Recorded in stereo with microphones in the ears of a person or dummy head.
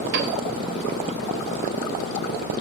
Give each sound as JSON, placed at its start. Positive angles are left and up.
{"t": 0.1, "sound": "a piano", "side_deg": -55, "distance_m": 3.5}